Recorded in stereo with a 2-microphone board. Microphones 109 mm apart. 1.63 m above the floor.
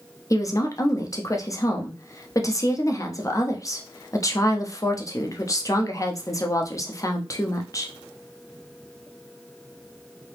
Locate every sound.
0.3 s a woman speaking: 30° left (ahead or behind), 0.7 m